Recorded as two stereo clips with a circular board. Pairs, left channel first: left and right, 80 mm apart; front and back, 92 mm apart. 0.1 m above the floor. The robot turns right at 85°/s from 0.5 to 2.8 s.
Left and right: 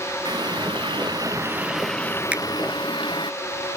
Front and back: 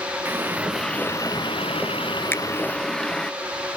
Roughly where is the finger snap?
Ahead right.